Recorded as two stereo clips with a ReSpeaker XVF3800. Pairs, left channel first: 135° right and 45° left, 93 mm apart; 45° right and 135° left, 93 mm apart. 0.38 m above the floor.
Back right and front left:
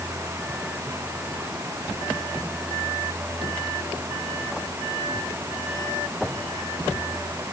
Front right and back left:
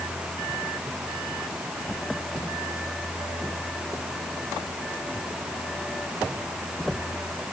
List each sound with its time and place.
Only background noise.